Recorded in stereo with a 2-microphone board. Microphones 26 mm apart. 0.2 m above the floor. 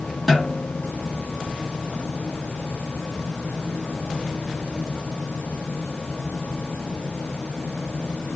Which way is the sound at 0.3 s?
Centre (ahead or behind).